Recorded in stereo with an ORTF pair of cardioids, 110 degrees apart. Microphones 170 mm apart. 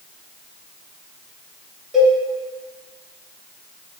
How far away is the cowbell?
About 1.0 m.